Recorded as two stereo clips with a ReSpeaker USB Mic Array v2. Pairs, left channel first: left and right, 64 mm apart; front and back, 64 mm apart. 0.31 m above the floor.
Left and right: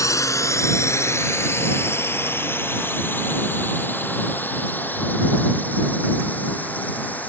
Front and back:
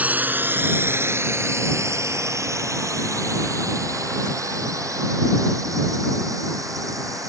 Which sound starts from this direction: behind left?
A drone, at 0.0 s.